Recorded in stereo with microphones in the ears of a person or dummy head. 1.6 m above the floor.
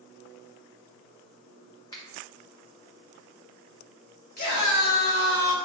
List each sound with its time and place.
1.9 s a finger snap: 20° left (ahead or behind), 0.6 m
4.4 s a scream: 45° left (ahead or behind), 0.7 m